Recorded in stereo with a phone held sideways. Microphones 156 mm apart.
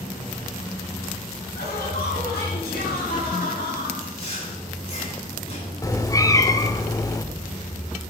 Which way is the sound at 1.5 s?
80° left.